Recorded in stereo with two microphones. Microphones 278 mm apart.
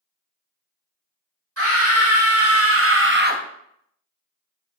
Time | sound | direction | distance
1.6 | a scream | 55° right (ahead or behind) | 1.5 m